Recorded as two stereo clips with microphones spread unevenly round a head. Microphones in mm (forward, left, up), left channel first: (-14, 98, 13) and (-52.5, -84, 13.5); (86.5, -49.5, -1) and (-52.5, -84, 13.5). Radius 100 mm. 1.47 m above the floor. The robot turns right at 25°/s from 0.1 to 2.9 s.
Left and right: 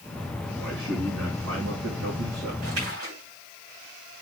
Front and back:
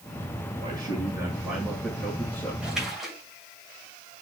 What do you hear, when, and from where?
0.6 s a man speaking: 120° right, 7 m; by 2.5 s 70° right, 7 m
2.6 s a splash: 85° right, 7 m; by 3.2 s 75° right, 7 m